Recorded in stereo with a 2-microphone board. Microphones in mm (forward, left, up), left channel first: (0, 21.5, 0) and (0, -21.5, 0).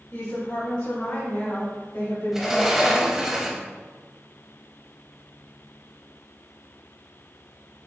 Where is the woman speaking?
65° left (ahead or behind), 1.6 m; by 3.3 s 80° left, 3 m.